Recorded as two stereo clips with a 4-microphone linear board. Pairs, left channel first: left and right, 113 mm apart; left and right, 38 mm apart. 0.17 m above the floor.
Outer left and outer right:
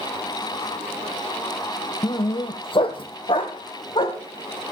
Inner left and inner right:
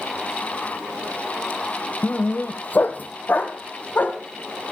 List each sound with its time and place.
2.0 s a dog barking: 45° left (ahead or behind), 0.6 m; by 4.2 s 60° left (ahead or behind), 3 m